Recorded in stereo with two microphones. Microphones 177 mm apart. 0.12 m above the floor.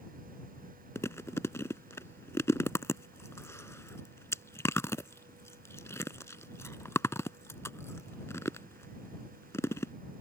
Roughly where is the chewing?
Centre.